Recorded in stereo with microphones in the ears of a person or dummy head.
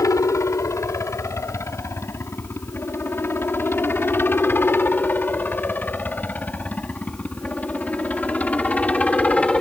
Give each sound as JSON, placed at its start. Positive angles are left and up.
{"t": 0.0, "sound": "a helicopter", "side_deg": 15}